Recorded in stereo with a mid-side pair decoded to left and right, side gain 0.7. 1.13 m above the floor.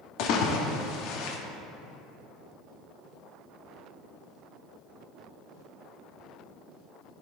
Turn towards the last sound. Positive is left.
turn(degrees=65)